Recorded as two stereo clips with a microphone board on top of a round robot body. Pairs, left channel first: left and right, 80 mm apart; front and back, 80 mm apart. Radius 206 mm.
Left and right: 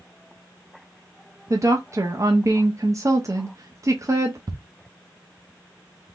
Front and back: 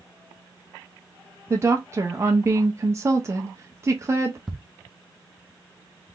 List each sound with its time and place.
1.5 s a woman speaking: 130° right, 1.0 m
4.5 s ticking: 95° right, 1.0 m